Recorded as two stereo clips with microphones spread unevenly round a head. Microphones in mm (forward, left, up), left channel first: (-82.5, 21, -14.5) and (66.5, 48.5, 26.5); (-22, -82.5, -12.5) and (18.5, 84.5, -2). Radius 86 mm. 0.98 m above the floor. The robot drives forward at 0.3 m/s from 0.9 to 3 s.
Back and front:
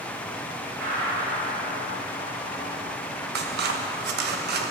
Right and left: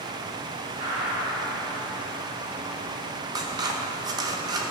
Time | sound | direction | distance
0.8 | a gunshot | 20° left | 5 m
3.4 | scissors | 10° left | 1.0 m